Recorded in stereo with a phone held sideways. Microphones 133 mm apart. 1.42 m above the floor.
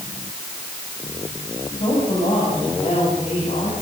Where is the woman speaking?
55° left (ahead or behind), 8.5 m; by 3.7 s 60° left (ahead or behind), 10.5 m.